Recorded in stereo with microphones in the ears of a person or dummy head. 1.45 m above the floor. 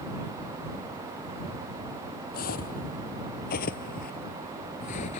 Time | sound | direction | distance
2.3 | footsteps | 45° left (ahead or behind) | ?